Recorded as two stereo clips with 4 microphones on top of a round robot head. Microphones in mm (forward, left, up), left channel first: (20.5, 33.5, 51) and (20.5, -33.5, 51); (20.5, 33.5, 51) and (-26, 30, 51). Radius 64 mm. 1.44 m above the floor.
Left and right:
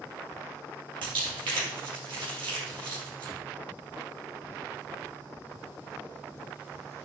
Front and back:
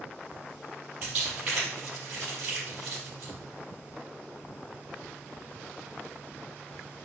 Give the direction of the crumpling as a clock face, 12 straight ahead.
3 o'clock.